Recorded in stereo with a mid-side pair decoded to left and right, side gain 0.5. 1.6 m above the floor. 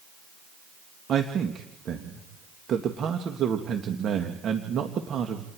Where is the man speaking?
55° right, 2.0 m.